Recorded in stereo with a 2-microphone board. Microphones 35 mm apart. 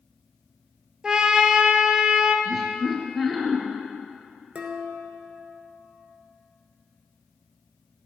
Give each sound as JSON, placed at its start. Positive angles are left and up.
{"t": 1.0, "sound": "a trumpet", "side_deg": -20, "distance_m": 0.9}
{"t": 2.5, "sound": "laughter", "side_deg": -5, "distance_m": 2.0}
{"t": 4.5, "sound": "dishes clattering", "side_deg": -35, "distance_m": 1.1}